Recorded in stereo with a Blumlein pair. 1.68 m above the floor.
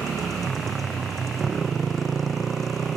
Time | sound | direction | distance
0.0 | a motorcycle | 20° right | ?